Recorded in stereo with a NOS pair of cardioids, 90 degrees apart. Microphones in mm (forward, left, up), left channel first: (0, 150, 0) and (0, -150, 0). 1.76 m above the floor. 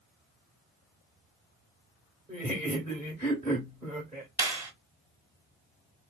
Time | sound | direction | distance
2.3 | laughter | 15° right | 1.2 m
4.4 | a clap | 10° right | 1.4 m